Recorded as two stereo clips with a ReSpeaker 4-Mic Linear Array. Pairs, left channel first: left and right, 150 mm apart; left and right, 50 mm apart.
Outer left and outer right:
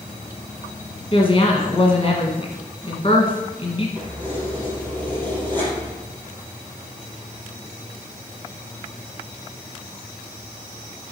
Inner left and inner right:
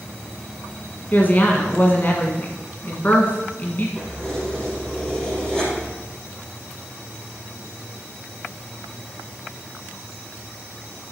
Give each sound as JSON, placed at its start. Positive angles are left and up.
{"t": 1.1, "sound": "a woman speaking", "side_deg": 40, "distance_m": 1.6}
{"t": 4.0, "sound": "keys jangling", "side_deg": 10, "distance_m": 3.5}